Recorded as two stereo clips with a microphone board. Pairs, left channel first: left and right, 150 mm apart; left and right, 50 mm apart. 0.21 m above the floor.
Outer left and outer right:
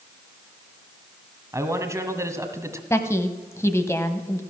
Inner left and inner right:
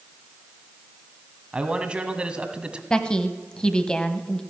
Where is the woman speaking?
20° left (ahead or behind), 0.9 m.